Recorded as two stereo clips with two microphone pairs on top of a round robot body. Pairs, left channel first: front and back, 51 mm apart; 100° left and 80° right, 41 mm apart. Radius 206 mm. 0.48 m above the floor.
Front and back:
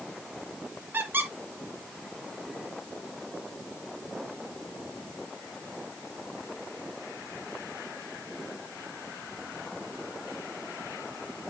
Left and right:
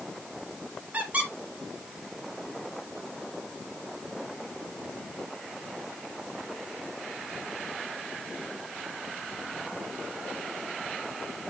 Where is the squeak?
135° right, 2 m.